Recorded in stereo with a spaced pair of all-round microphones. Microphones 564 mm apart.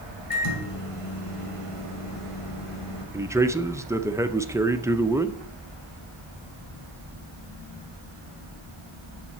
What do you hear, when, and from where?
0.3 s a microwave: 70° left (ahead or behind), 1.9 m
3.1 s a man speaking: 5° right (ahead or behind), 0.5 m